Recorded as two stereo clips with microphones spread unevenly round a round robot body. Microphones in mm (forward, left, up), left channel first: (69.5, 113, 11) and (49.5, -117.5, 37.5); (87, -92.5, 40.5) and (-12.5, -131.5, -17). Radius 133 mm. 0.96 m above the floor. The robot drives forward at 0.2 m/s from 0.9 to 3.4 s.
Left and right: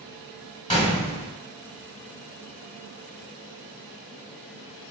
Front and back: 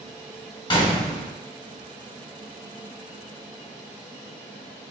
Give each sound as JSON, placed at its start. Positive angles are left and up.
{"t": 0.7, "sound": "a gunshot", "azimuth_deg": 10, "distance_m": 1.3}